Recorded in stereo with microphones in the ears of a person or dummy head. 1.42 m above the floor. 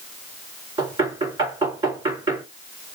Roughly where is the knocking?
Right.